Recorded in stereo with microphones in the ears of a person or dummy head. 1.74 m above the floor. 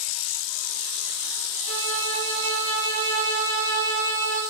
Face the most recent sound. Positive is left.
turn(degrees=-65)  # may be behind; listen again after turning